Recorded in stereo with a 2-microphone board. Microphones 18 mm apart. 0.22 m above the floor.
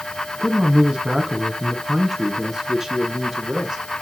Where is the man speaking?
50° right (ahead or behind), 1.7 m; by 3.8 s 20° right (ahead or behind), 3 m.